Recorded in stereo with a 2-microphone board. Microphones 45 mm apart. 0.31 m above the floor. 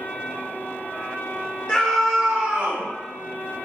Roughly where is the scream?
Centre.